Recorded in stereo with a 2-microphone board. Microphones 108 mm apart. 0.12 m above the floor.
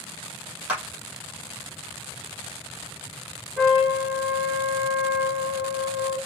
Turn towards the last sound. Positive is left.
turn(degrees=5)  # may be behind; listen again after turning